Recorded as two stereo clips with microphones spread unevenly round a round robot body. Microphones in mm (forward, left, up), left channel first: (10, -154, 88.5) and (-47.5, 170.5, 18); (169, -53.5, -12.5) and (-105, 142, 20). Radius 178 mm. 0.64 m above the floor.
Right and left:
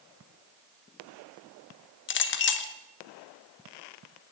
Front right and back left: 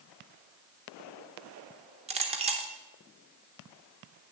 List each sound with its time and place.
2.1 s a clink: 140° right, 0.7 m